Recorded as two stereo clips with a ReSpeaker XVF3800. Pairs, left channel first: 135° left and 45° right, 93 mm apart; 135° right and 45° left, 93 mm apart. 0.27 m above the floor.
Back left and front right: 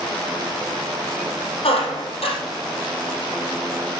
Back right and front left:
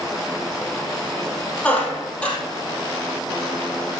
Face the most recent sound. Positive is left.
turn(degrees=145)